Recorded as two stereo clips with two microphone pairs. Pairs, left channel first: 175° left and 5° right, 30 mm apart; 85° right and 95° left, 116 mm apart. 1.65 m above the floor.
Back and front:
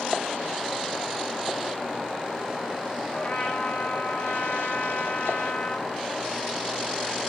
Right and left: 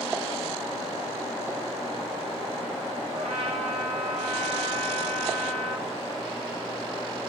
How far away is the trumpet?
About 3 m.